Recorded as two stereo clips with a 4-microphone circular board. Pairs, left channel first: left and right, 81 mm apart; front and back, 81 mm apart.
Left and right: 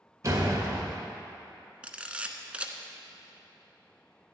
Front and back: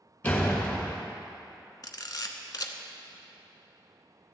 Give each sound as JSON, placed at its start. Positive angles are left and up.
{"t": 0.2, "sound": "a door slam", "azimuth_deg": -60, "distance_m": 1.6}
{"t": 1.8, "sound": "a camera shutter", "azimuth_deg": -20, "distance_m": 0.8}